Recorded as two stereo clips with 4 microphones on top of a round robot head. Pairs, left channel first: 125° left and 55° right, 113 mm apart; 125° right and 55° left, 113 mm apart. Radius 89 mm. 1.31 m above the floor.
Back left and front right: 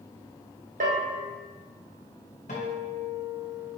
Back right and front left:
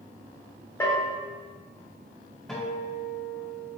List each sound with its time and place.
0.8 s a bell: 55° right, 1.6 m
2.5 s a guitar: 145° left, 1.8 m